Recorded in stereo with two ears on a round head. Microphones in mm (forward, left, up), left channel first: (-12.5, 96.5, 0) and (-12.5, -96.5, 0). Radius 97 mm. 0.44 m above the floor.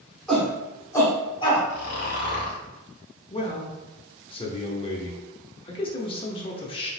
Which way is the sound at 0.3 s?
5° left (ahead or behind).